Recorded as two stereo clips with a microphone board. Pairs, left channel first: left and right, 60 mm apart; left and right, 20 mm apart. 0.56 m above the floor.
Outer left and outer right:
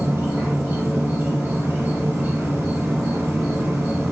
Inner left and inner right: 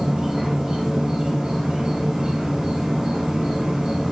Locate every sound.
0.0 s an insect: 45° right (ahead or behind), 1.4 m